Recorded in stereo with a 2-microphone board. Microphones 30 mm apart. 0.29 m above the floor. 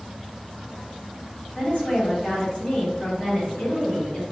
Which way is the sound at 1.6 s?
50° left (ahead or behind).